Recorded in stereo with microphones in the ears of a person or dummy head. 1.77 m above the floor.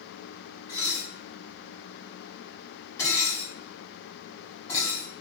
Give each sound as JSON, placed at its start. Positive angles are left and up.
{"t": 0.7, "sound": "dishes clattering", "side_deg": 20, "distance_m": 1.7}